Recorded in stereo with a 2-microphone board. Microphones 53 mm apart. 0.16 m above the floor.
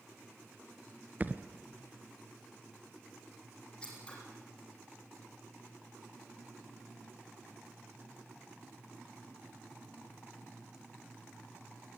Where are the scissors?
20° left (ahead or behind), 7.5 m.